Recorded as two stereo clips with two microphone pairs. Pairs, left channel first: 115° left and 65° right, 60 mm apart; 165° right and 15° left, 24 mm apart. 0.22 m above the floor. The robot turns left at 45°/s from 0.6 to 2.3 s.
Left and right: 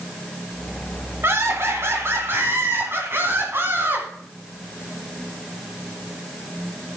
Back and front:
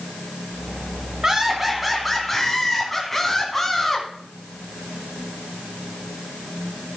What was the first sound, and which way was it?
Laughter, 40° right.